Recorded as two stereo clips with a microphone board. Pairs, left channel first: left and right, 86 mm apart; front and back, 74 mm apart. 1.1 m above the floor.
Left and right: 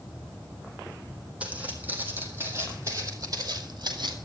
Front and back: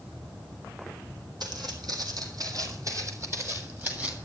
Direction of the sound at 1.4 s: 165° right.